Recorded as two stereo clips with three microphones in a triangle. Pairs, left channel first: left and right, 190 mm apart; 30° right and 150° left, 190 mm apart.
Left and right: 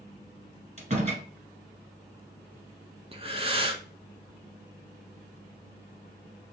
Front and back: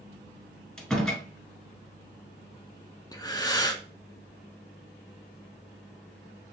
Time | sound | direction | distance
0.8 | a door slam | 115° right | 1.5 m
3.1 | breathing | 80° right | 0.7 m